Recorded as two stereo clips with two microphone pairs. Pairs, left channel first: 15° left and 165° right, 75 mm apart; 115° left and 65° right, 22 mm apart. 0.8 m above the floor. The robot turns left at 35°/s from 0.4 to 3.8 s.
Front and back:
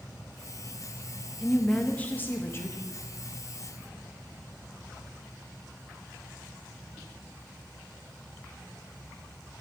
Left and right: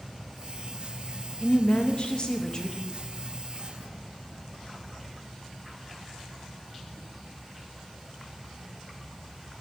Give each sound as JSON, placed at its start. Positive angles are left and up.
{"t": 1.4, "sound": "a woman speaking", "azimuth_deg": 100, "distance_m": 1.1}